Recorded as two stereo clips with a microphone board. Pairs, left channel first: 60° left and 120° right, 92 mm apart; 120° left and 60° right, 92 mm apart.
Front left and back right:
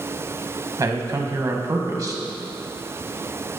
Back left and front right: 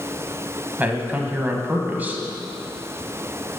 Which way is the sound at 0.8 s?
115° right.